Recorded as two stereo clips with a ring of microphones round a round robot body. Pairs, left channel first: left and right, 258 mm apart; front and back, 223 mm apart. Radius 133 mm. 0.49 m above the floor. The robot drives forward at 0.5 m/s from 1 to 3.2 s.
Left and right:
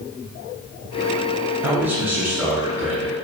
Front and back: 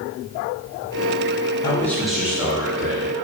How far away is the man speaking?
About 0.8 m.